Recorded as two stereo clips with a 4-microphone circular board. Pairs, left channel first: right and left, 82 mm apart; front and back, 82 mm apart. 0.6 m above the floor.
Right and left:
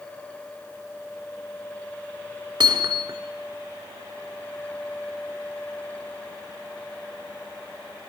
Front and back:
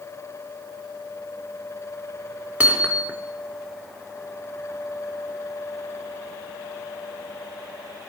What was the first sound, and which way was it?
Hammering, 110° left.